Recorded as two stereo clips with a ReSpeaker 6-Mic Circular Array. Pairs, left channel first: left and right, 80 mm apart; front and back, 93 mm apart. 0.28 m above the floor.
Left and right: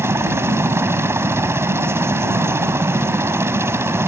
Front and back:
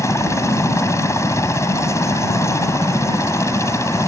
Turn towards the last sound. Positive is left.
turn(degrees=-45)